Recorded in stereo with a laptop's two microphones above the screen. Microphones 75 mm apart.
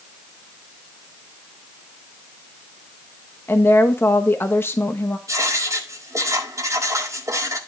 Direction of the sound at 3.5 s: 30° left (ahead or behind).